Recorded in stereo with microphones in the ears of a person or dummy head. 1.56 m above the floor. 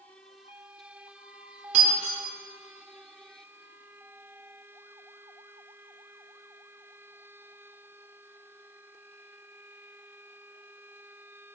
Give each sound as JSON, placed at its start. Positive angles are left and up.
{"t": 1.7, "sound": "breaking glass", "side_deg": -45, "distance_m": 2.0}